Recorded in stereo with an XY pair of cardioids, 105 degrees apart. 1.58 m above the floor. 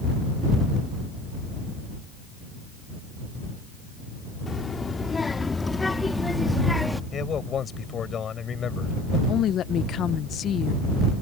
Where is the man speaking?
50° left.